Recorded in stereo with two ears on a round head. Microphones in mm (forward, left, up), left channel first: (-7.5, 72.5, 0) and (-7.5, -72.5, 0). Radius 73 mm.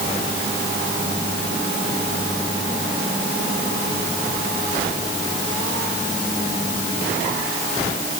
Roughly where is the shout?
No shout in this recording.